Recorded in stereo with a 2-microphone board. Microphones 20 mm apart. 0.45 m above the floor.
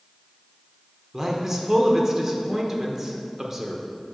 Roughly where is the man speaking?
Right.